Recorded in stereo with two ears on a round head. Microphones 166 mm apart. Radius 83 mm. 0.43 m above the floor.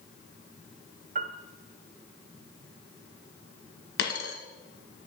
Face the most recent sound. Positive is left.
turn(degrees=65)  # may be behind; listen again after turning